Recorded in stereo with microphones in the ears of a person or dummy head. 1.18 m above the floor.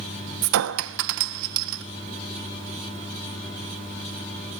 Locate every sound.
0.4 s a clink: 70° right (ahead or behind), 0.5 m